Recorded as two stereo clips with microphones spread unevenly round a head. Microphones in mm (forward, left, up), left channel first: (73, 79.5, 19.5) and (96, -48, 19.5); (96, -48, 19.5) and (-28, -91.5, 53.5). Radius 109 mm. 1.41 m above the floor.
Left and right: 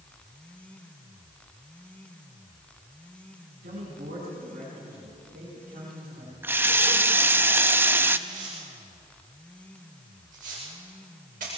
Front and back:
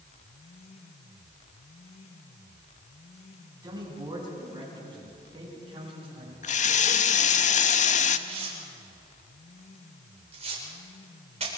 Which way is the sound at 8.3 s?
125° right.